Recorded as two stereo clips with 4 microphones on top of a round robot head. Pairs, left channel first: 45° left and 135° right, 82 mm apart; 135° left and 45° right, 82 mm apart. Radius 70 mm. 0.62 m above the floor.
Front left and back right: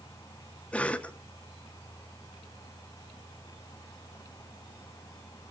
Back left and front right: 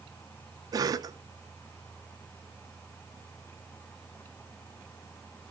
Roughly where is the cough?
Ahead right.